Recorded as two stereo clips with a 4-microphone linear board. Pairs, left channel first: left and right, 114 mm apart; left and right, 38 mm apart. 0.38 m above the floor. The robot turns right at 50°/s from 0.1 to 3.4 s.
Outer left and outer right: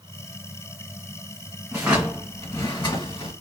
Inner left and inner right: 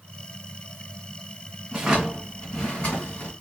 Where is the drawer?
15° right, 1.5 m; by 3.3 s 65° left, 1.5 m.